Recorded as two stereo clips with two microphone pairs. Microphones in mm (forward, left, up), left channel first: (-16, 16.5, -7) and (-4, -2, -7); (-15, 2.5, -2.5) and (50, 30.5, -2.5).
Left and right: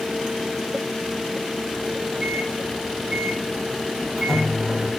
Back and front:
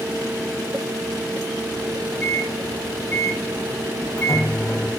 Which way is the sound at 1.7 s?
110° right.